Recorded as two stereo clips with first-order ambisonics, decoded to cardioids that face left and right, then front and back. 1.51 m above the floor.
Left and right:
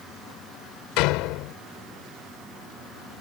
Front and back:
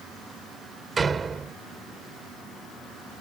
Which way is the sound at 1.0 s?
110° left.